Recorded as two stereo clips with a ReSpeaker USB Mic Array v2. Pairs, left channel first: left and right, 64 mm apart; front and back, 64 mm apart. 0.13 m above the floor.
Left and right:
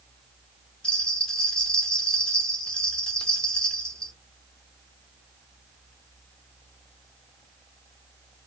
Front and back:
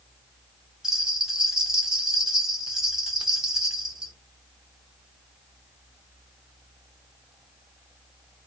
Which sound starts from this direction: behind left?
A bell, at 0.8 s.